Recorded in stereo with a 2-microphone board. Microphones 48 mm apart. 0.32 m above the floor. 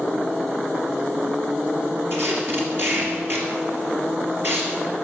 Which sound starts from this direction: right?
Tape being pulled, at 2.1 s.